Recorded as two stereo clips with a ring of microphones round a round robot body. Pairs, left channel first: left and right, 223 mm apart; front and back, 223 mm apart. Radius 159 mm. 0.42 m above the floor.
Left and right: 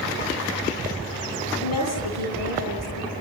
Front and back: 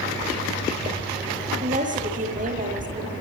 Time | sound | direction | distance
1.6 | a woman speaking | 125° left | 9.5 m